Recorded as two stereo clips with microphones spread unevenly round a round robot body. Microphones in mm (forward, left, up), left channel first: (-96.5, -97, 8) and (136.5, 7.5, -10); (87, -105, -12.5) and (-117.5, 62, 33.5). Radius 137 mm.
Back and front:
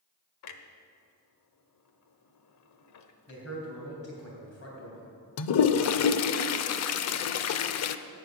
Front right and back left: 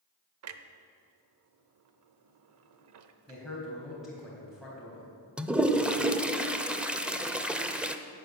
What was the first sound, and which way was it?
A clunk, 175° left.